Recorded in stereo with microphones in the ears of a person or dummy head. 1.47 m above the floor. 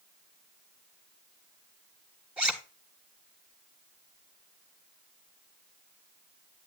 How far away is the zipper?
About 1.2 m.